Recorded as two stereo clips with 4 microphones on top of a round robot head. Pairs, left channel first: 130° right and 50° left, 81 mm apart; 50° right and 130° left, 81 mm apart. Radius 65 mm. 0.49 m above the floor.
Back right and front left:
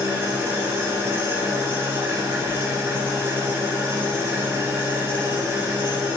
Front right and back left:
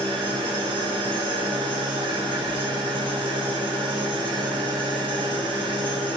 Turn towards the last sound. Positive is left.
turn(degrees=115)